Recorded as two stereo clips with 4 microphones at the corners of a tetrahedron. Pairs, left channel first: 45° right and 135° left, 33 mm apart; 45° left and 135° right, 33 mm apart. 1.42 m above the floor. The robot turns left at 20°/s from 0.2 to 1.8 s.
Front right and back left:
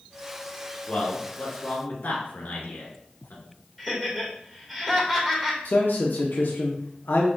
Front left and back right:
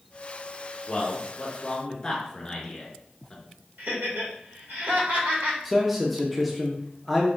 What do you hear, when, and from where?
0.9 s a man speaking: 5° right, 1.6 m; by 3.4 s 25° right, 1.6 m
3.8 s laughter: 140° right, 2 m
5.7 s a man speaking: 50° right, 0.6 m